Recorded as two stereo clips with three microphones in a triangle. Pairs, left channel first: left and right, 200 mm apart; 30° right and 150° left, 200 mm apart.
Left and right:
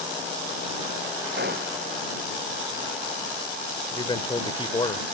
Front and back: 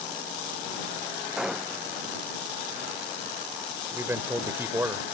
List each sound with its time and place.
1.4 s a gunshot: 125° right
3.9 s a man speaking: 90° left